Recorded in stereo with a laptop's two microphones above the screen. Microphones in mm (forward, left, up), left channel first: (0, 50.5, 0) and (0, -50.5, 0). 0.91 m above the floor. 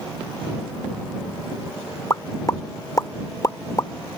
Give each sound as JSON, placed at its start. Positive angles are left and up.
{"t": 2.1, "sound": "a pop", "side_deg": 35}